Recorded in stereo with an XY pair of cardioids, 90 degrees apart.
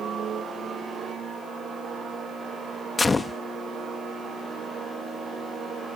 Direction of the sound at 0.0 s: 65° right.